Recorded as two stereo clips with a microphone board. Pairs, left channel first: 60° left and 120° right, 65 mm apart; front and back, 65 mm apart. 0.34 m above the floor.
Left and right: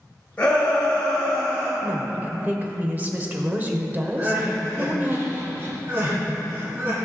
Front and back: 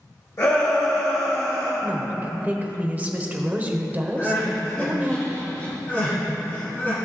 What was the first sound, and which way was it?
A shout, straight ahead.